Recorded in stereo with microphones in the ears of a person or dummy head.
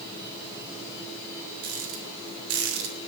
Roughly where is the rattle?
Right.